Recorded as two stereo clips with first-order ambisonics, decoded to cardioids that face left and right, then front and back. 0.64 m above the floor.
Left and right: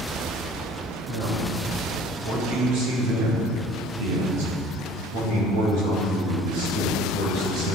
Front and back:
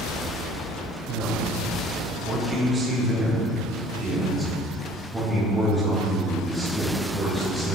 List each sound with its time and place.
1.1 s a man speaking: 130° right, 2.5 m; by 7.8 s 85° right, 5.5 m